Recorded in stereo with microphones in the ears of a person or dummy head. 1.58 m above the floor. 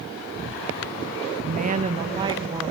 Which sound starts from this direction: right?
A woman speaking, at 1.4 s.